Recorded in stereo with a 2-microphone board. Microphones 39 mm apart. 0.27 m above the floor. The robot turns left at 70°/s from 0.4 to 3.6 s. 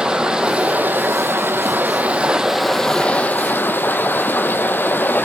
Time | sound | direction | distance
0.0 | running water | 20° right | 1.6 m